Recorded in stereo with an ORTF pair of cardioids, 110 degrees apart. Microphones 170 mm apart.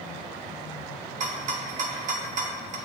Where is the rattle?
45° right, 0.7 m.